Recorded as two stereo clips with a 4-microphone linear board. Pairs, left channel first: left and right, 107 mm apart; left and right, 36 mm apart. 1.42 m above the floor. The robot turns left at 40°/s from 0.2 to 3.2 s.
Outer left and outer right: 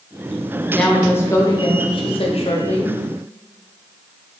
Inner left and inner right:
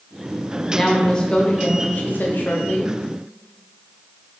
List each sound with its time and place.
0.7 s a woman speaking: 175° left, 0.8 m; by 2.9 s 90° left, 0.8 m